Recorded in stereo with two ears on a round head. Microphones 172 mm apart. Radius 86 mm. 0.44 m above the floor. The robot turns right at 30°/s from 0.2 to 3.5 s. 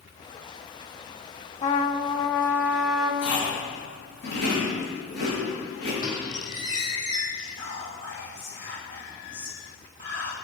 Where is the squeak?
25° left (ahead or behind), 3.5 m.